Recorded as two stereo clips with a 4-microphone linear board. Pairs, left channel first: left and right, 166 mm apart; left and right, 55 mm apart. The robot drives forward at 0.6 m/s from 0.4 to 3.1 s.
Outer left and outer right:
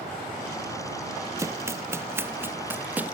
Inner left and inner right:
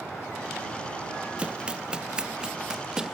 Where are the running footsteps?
20° right (ahead or behind); by 3.2 s 10° right (ahead or behind).